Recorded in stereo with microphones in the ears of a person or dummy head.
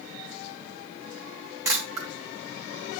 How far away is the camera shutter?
About 4 m.